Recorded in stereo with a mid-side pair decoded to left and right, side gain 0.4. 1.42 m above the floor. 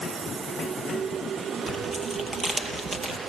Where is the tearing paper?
40° right, 7 m.